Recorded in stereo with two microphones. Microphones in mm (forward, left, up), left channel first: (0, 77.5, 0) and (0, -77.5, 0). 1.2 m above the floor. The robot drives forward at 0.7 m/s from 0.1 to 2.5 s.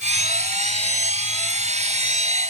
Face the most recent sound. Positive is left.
No sound to turn to.